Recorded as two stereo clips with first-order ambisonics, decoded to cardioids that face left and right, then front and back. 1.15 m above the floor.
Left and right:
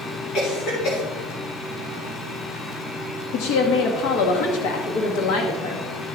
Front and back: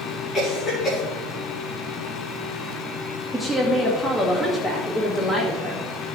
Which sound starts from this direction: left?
A woman speaking, at 3.3 s.